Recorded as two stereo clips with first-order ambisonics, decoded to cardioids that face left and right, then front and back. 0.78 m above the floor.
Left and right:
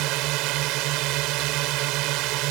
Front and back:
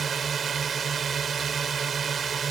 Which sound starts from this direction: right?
A drone, at 0.0 s.